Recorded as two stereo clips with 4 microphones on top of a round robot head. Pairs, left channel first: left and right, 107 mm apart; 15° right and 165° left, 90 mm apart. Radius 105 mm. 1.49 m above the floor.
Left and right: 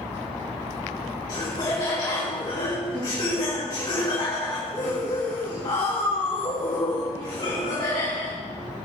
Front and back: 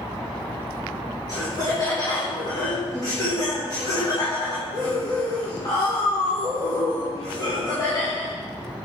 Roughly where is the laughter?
Ahead left.